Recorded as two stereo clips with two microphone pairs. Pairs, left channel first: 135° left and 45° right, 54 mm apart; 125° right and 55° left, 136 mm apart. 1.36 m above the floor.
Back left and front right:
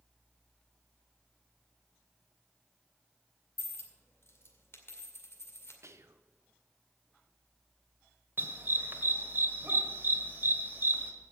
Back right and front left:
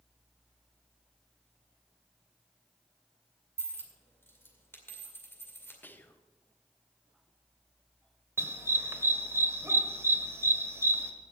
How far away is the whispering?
About 0.9 m.